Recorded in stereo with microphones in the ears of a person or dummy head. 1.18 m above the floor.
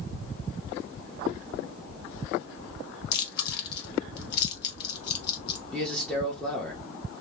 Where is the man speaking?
10° left (ahead or behind), 1.1 m.